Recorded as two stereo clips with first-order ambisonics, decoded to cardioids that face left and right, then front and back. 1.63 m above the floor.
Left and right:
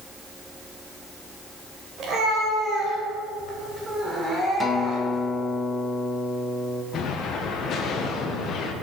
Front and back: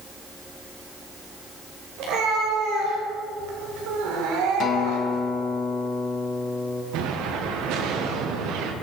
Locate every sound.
2.0 s a cat meowing: 150° right, 4 m; by 5.3 s 170° left, 3 m
4.6 s a guitar: 25° left, 1.3 m
6.9 s an explosion: 145° left, 1.5 m